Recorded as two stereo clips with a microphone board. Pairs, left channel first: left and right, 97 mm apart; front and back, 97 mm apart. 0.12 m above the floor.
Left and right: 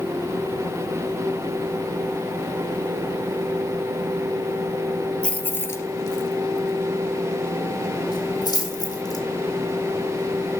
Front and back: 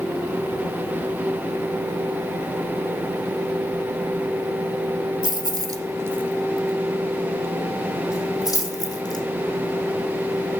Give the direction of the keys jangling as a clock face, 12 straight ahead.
7 o'clock.